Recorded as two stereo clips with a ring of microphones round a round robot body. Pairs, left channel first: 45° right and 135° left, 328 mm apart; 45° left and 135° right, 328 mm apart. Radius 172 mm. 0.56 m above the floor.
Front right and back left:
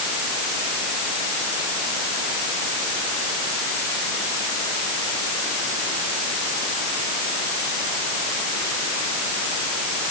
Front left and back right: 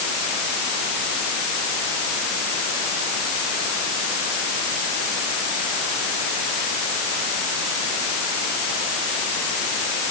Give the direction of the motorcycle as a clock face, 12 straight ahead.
I don't hear a motorcycle.